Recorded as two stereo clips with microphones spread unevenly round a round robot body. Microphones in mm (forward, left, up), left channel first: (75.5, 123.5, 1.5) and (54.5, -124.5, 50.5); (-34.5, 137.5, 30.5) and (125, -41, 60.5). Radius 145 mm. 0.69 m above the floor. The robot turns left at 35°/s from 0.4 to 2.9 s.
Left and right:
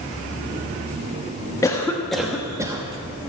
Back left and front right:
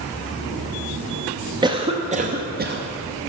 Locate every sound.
1.6 s a cough: 25° left, 1.0 m; by 2.8 s 15° right, 1.0 m